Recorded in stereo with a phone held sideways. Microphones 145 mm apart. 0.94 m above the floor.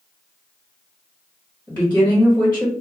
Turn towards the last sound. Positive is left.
turn(degrees=10)  # may be behind; listen again after turning